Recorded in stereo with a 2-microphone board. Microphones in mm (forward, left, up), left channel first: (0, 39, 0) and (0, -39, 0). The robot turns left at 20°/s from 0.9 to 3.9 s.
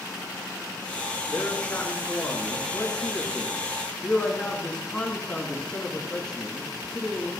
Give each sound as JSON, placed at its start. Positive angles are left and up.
{"t": 1.3, "sound": "a man speaking", "azimuth_deg": 70, "distance_m": 1.8}